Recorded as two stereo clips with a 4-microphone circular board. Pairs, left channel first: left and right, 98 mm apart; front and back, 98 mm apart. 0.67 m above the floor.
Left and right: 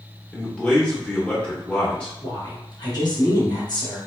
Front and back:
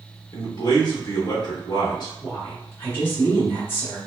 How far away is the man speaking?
About 1.1 m.